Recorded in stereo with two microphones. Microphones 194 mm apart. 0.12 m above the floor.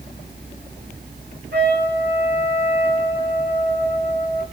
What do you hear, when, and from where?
1.5 s a trumpet: 60° right (ahead or behind), 3 m